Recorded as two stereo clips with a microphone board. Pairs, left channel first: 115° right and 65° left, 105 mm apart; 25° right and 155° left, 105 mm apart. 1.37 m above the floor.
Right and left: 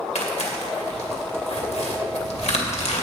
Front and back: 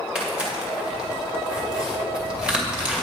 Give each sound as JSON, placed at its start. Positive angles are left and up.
{"t": 0.1, "sound": "tearing paper", "azimuth_deg": -120, "distance_m": 2.0}